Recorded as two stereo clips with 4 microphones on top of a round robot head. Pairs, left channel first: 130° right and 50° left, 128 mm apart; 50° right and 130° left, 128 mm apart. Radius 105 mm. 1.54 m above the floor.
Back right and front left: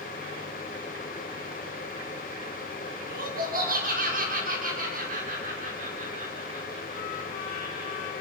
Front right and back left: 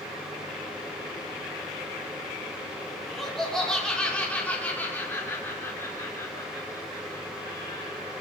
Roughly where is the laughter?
Ahead left.